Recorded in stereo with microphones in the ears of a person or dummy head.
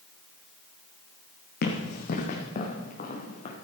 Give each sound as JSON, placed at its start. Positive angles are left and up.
{"t": 1.6, "sound": "running footsteps", "side_deg": 60, "distance_m": 2.5}